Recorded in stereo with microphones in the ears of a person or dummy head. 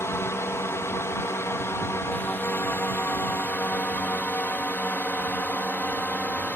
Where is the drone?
15° left (ahead or behind).